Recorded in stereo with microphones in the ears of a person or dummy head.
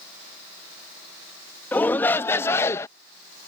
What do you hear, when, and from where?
1.7 s a shout: 10° left (ahead or behind); by 2.9 s 15° left (ahead or behind)